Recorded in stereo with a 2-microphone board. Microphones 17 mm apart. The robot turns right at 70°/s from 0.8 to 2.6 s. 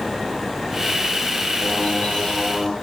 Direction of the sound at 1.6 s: 75° left.